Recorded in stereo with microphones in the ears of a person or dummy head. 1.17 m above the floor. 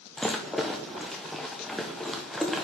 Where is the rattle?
Centre (ahead or behind), 0.6 m.